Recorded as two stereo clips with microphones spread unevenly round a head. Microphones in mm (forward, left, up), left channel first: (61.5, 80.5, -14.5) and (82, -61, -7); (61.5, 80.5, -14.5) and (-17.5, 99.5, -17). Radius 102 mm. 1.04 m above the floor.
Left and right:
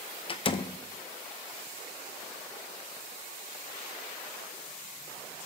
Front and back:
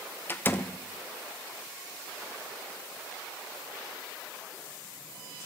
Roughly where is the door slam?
Ahead left.